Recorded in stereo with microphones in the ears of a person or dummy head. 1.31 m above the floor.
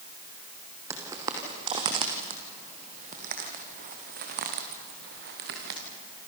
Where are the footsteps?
20° right (ahead or behind), 2.5 m; by 5.8 s 60° right (ahead or behind), 4.5 m.